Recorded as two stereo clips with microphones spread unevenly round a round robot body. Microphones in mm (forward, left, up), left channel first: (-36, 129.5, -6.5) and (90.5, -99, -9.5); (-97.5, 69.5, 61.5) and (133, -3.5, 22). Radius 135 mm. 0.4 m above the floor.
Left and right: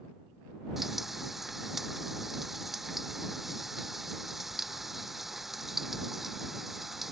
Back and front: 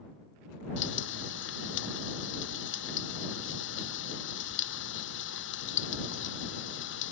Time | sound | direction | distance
0.8 | frying | 150° right | ?